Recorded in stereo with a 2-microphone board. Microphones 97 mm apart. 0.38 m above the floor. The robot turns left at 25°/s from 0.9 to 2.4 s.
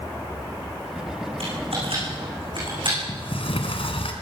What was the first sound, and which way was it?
Typing on a keyboard, 85° right.